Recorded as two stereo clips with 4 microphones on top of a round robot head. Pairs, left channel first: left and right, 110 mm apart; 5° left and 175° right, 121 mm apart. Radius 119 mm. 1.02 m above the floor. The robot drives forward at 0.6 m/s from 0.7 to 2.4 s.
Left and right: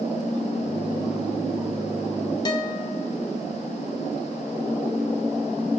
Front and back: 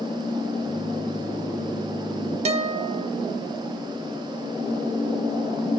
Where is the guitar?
150° left, 0.7 m.